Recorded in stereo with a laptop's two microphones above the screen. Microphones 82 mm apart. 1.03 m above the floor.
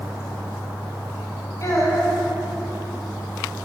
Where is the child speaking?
50° left (ahead or behind), 3 m.